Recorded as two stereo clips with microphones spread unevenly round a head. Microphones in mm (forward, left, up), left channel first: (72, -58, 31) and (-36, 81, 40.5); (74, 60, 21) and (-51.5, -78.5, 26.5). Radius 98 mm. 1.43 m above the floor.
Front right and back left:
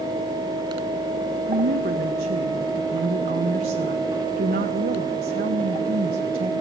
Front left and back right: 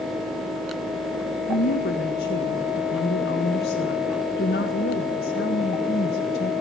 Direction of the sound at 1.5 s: 90° left.